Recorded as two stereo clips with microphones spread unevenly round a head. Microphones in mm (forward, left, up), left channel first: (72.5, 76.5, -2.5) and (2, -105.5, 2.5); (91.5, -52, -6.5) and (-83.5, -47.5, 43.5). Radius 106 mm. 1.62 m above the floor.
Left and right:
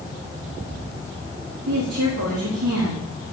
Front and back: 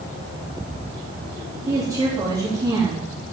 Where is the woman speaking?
110° right, 4 m.